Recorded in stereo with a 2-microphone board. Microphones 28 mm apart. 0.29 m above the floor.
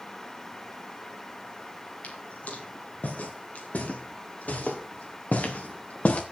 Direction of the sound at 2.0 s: 75° left (ahead or behind).